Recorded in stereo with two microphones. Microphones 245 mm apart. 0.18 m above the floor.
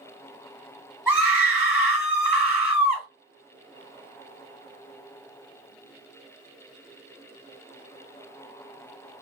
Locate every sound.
1.1 s a scream: 5° right (ahead or behind), 2.0 m